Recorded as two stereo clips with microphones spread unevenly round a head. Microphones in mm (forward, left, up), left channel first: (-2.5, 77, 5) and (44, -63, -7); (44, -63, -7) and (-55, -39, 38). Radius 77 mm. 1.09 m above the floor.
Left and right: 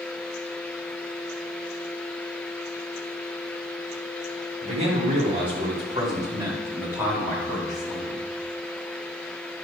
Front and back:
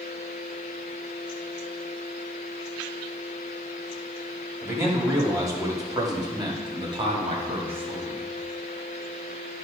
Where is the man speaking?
125° right, 2.5 m; by 8.3 s 170° right, 2 m.